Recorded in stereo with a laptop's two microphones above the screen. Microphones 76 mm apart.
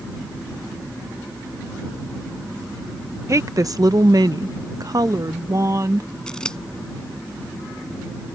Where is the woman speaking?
40° right (ahead or behind).